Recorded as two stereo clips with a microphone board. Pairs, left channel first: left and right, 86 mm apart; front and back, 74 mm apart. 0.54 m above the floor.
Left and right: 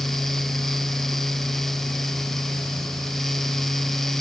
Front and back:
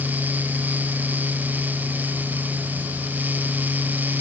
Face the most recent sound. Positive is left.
No sound to turn to.